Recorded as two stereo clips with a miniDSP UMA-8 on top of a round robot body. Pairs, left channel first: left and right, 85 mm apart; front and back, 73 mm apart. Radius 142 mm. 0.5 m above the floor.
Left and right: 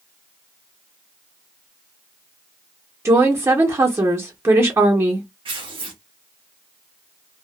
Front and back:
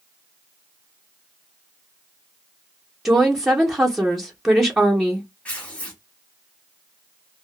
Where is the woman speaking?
100° right, 1.0 m.